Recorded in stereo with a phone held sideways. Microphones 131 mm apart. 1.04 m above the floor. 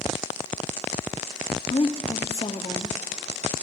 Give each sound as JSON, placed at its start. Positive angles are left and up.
{"t": 1.7, "sound": "a woman speaking", "side_deg": 50, "distance_m": 1.7}